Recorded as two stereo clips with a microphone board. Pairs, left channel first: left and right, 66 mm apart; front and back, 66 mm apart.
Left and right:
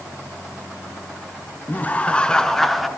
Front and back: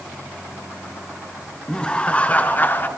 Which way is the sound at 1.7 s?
65° left.